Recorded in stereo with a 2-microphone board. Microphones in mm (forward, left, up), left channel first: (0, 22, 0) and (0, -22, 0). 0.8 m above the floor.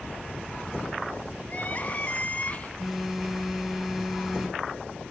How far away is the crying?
About 3 m.